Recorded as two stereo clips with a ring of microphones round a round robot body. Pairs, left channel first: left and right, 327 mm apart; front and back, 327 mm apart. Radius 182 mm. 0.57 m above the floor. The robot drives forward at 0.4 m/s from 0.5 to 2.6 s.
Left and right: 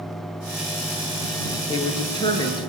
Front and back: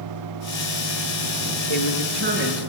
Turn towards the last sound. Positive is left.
turn(degrees=165)